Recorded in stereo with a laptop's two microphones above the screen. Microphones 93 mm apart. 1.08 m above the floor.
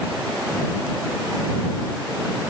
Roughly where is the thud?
I don't hear a thud.